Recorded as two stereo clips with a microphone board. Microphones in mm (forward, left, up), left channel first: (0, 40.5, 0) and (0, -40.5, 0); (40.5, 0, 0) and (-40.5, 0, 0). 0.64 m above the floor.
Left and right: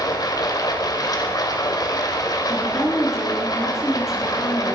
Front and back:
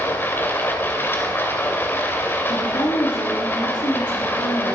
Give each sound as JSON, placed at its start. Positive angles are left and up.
{"t": 0.0, "sound": "running water", "azimuth_deg": 60, "distance_m": 2.0}
{"t": 2.5, "sound": "a woman speaking", "azimuth_deg": -5, "distance_m": 7.5}